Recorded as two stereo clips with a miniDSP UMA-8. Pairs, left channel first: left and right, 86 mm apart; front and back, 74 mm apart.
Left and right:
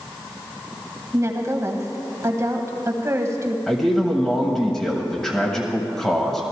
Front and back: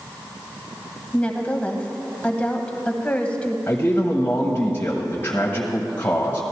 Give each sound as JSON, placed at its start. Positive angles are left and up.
{"t": 1.1, "sound": "a woman speaking", "azimuth_deg": -60, "distance_m": 1.2}
{"t": 3.7, "sound": "a man speaking", "azimuth_deg": 15, "distance_m": 1.2}